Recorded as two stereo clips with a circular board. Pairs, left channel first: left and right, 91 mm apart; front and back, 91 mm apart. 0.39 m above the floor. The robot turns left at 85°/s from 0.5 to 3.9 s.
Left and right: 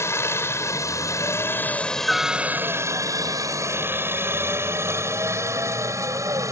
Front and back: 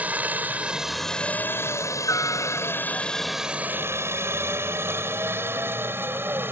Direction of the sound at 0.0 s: 120° left.